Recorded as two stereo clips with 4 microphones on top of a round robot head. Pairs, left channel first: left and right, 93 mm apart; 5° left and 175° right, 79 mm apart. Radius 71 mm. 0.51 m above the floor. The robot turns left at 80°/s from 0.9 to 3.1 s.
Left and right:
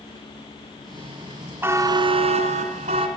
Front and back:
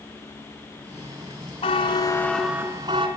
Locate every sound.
1.6 s a buzzer: 20° right, 2.5 m; by 3.1 s 140° right, 2.5 m